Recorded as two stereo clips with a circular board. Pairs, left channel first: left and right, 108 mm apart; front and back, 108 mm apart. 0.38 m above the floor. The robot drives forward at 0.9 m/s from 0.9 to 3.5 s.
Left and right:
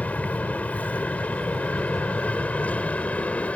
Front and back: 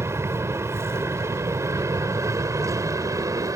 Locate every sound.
0.0 s an aircraft: 150° left; by 3.6 s 155° left